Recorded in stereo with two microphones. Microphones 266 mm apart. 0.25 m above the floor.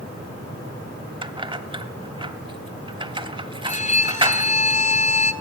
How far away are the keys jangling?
About 0.7 m.